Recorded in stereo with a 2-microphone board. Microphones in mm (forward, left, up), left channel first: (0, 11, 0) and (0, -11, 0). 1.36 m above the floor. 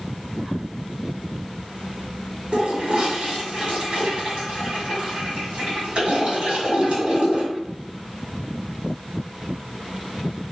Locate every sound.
2.5 s a toilet flushing: 60° right (ahead or behind), 1.6 m